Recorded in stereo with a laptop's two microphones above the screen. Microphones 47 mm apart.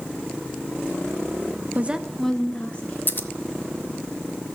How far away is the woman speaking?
About 0.6 m.